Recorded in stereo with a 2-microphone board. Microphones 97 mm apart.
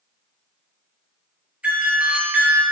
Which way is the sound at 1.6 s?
15° right (ahead or behind).